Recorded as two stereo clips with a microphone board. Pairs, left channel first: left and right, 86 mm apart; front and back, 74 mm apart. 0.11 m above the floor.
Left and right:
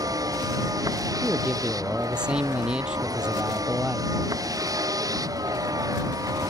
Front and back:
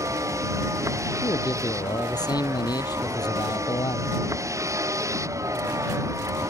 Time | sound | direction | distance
0.0 | a vehicle | 135° right | ?
1.2 | a man speaking | 15° right | ?